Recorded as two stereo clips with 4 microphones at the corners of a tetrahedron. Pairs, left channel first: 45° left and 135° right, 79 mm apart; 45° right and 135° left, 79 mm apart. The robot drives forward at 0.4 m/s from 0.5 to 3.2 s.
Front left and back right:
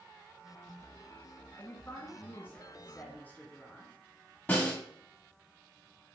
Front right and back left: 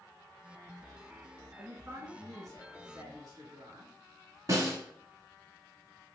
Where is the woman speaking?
90° left, 2 m; by 3.9 s 110° left, 2 m.